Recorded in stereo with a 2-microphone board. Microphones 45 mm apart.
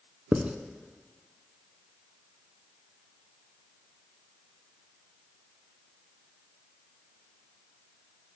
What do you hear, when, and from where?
0.3 s writing: 30° right (ahead or behind), 0.6 m